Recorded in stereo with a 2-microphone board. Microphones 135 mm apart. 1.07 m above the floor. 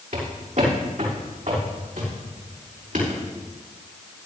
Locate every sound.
0.1 s footsteps: 70° right (ahead or behind), 5.5 m; by 3.2 s 75° right (ahead or behind), 6.5 m